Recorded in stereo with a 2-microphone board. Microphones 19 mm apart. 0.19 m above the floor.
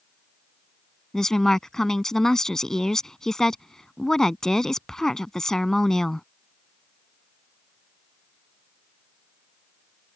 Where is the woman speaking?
25° left (ahead or behind).